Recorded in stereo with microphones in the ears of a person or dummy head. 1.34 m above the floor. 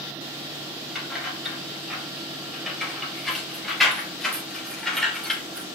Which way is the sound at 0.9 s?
Centre (ahead or behind).